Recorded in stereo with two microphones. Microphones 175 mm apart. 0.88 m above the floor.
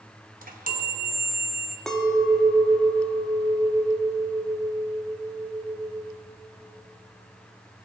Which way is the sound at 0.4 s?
55° right (ahead or behind).